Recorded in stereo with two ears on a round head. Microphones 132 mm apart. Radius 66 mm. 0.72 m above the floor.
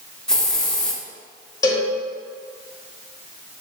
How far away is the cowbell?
About 2.5 m.